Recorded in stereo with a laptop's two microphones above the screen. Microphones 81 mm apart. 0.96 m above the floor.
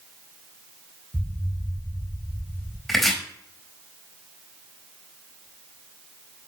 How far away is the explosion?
About 0.8 m.